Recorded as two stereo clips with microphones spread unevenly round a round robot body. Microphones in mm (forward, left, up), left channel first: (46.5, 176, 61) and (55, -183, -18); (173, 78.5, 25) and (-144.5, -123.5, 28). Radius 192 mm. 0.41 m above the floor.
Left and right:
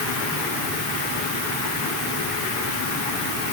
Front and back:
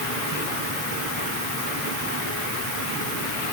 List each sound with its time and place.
Only background noise.